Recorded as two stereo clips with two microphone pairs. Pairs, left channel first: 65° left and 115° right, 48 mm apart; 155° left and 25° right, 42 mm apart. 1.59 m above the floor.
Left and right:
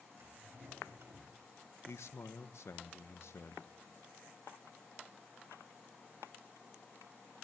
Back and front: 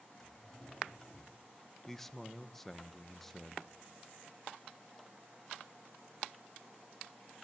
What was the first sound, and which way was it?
A drawer, 125° right.